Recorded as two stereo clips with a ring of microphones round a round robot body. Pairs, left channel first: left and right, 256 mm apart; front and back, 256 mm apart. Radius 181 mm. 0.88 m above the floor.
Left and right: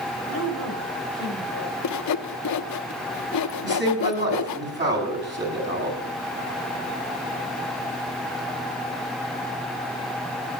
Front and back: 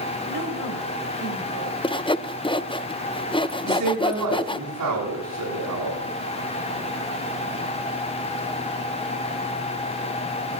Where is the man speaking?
135° right, 8 m.